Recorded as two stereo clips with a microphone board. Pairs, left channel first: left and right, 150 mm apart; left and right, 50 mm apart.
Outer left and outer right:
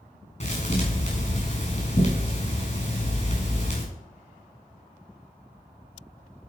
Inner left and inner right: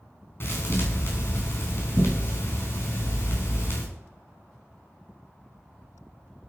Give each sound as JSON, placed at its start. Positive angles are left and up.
{"t": 0.4, "sound": "a thud", "side_deg": 45, "distance_m": 4.5}